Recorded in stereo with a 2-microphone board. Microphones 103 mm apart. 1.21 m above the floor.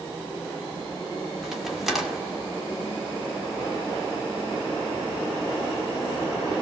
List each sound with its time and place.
1.4 s a crack: 5° right (ahead or behind), 2.5 m